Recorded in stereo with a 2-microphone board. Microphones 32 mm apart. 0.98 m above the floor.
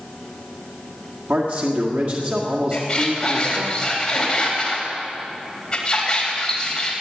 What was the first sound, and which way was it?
A man speaking, 75° right (ahead or behind).